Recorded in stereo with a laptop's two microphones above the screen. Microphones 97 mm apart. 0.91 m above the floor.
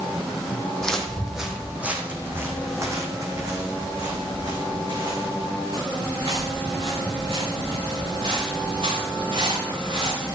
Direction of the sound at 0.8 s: 10° left (ahead or behind).